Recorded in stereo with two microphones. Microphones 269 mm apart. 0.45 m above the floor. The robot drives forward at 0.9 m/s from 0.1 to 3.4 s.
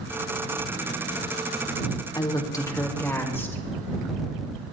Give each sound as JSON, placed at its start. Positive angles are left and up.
{"t": 2.1, "sound": "a woman speaking", "side_deg": 15, "distance_m": 0.8}